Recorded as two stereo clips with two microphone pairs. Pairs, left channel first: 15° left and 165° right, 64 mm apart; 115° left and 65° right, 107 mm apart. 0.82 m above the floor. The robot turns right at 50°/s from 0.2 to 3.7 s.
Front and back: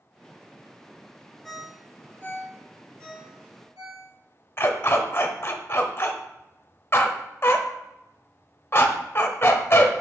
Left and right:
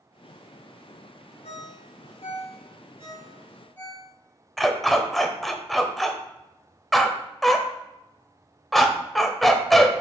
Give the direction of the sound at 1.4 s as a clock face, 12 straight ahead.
9 o'clock.